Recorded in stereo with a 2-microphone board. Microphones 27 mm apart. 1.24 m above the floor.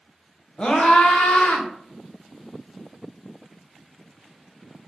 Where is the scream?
35° left (ahead or behind), 1.0 m; by 1.7 s 75° left (ahead or behind), 1.3 m.